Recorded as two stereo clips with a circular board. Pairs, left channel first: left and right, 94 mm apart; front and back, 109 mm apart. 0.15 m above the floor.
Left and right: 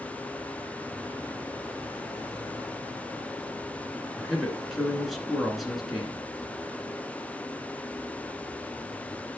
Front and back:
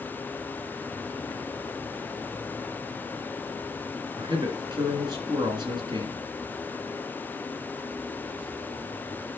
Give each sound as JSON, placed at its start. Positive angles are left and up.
{"t": 4.2, "sound": "a man speaking", "azimuth_deg": 180, "distance_m": 2.0}